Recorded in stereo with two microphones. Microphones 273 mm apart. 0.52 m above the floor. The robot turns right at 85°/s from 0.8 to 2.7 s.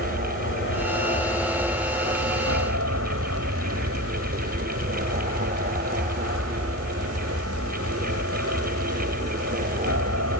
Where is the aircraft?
120° left; by 10.4 s 80° right.